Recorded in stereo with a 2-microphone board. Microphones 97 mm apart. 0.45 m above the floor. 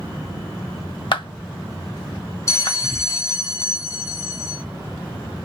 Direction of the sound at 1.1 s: 55° left (ahead or behind).